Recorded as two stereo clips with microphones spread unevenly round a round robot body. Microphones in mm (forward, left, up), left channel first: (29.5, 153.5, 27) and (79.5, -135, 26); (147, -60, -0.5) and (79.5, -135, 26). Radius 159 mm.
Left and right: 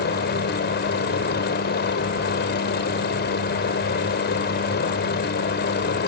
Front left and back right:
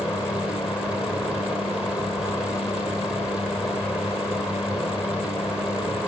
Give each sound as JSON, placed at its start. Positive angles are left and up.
{"t": 0.0, "sound": "a helicopter", "azimuth_deg": 130}